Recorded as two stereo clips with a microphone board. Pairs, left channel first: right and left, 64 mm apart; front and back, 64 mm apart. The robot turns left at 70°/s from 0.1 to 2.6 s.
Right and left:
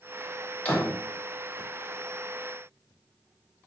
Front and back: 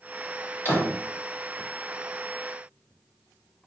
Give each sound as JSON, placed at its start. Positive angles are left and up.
{"t": 0.7, "sound": "a door slam", "azimuth_deg": -35, "distance_m": 0.9}